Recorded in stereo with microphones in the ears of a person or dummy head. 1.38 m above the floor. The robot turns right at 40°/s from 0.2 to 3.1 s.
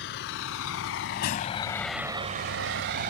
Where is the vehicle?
60° left (ahead or behind); by 3.1 s 50° right (ahead or behind).